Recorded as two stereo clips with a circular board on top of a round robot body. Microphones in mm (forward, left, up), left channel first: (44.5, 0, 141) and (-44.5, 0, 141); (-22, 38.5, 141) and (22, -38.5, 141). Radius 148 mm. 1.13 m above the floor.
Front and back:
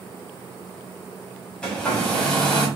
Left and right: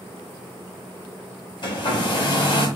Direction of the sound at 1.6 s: 80° left.